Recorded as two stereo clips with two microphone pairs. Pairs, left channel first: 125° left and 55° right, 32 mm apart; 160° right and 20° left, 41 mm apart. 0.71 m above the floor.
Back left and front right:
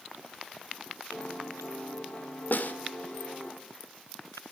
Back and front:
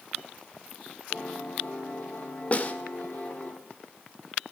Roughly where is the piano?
Behind.